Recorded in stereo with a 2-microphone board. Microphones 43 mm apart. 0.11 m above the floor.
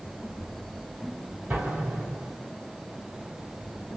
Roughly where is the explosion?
Right.